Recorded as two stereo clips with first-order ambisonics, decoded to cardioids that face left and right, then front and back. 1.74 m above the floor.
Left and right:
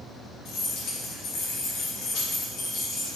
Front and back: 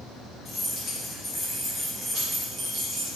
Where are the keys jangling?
75° left, 1.9 m; by 3.2 s 150° left, 1.5 m.